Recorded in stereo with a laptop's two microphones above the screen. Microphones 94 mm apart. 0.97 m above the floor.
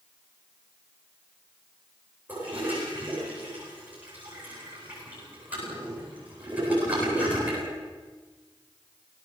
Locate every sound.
2.3 s a toilet flushing: 15° right (ahead or behind), 9.5 m